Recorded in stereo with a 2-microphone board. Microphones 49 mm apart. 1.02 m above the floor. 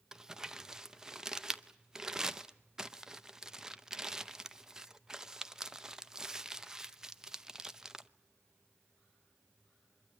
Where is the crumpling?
10° right (ahead or behind), 0.7 m.